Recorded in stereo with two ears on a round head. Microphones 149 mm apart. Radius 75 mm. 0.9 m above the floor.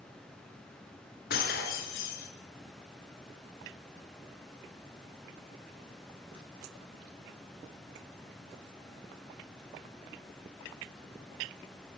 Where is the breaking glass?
60° left (ahead or behind), 4 m.